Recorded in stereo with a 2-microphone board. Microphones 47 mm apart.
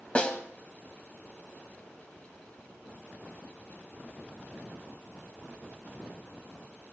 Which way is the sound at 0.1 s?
25° left (ahead or behind).